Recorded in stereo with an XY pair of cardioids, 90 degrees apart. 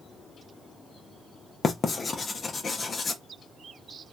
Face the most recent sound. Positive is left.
turn(degrees=35)